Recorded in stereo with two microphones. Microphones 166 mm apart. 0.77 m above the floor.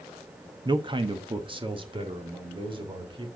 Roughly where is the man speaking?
Right.